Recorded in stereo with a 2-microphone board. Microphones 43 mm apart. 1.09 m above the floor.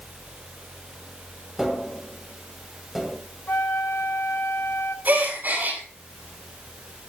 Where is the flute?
70° left (ahead or behind), 1.4 m.